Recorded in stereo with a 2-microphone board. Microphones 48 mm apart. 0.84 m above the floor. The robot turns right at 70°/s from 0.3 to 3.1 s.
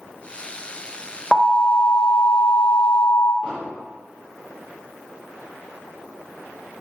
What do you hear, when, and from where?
1.3 s an alarm: 15° left, 1.7 m; by 3.3 s 140° left, 1.7 m
3.4 s an explosion: 10° right (ahead or behind), 3.5 m